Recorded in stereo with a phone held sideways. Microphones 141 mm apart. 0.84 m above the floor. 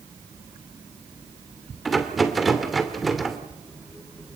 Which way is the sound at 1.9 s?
Centre (ahead or behind).